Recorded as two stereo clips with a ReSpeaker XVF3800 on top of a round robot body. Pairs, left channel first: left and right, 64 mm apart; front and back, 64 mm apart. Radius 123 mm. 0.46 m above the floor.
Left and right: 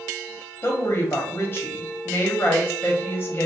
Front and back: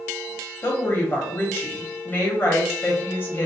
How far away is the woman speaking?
About 1.2 m.